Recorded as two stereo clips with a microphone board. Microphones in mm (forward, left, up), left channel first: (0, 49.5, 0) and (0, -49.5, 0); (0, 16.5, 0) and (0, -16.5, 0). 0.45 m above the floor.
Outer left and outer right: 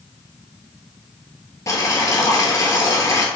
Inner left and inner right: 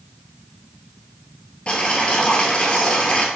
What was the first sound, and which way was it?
Boiling, 35° left (ahead or behind).